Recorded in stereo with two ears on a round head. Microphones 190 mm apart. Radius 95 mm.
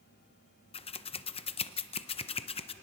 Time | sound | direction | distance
0.7 | scissors | 30° left (ahead or behind) | 0.5 m